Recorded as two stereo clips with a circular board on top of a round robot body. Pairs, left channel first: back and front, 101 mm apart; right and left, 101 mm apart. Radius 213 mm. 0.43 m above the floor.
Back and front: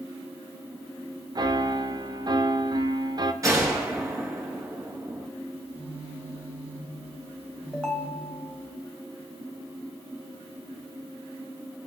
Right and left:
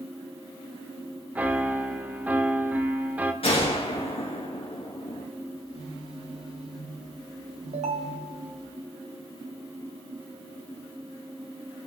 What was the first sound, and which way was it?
A piano, 20° left.